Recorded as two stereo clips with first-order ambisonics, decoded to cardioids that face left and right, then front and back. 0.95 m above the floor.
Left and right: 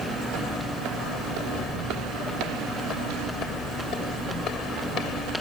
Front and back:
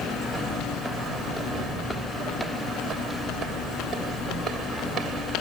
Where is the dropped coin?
I don't hear a dropped coin.